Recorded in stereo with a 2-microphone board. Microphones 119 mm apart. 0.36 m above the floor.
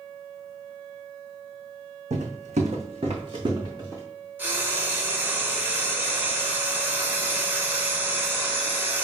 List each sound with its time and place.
2.1 s footsteps: 65° right (ahead or behind), 0.9 m; by 4.0 s 25° right (ahead or behind), 1.5 m
4.4 s frying: 15° right (ahead or behind), 0.9 m